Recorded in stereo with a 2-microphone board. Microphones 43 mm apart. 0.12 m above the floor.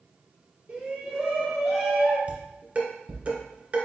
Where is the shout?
35° right (ahead or behind), 1.4 m; by 2.2 s centre (ahead or behind), 1.6 m.